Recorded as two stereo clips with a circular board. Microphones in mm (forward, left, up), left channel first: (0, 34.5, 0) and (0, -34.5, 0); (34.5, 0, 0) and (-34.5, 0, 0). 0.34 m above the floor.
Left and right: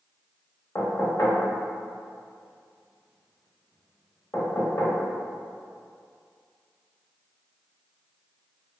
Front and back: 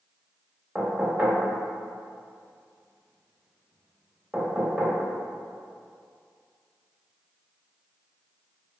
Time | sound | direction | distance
0.8 | knocking | 110° left | 0.7 m